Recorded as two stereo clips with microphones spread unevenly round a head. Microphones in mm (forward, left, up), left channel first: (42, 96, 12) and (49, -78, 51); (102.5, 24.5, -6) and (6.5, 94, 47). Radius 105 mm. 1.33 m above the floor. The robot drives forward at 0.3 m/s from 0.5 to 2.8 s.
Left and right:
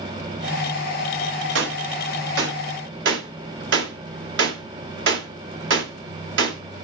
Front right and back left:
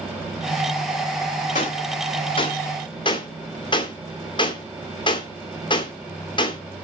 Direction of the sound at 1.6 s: 100° right.